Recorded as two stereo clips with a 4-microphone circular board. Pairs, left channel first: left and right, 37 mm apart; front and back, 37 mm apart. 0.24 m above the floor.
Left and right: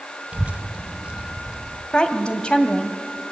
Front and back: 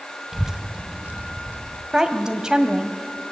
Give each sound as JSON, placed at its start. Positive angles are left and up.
{"t": 0.3, "sound": "a child speaking", "azimuth_deg": -100, "distance_m": 0.7}
{"t": 1.9, "sound": "a woman speaking", "azimuth_deg": 120, "distance_m": 1.6}